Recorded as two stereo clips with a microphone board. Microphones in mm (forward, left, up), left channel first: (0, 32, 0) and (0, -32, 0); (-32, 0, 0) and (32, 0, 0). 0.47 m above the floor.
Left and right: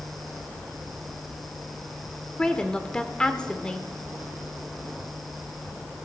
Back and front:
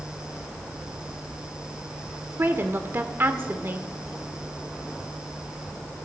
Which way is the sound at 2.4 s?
25° left.